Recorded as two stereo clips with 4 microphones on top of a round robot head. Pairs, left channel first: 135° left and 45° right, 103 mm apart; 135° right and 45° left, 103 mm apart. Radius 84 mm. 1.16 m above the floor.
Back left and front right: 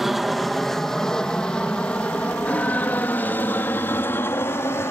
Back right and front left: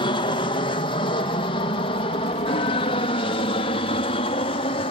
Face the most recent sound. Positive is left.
turn(degrees=-160)